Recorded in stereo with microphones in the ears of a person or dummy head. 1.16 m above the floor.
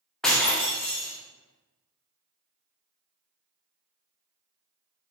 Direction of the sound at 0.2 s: 5° left (ahead or behind).